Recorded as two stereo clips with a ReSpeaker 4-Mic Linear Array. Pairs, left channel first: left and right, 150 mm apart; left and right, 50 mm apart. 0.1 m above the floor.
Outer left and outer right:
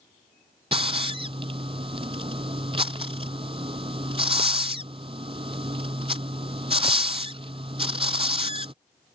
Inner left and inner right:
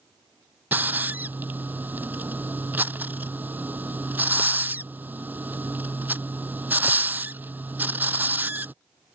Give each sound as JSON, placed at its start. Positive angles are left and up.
{"t": 0.7, "sound": "a hiss", "side_deg": -40}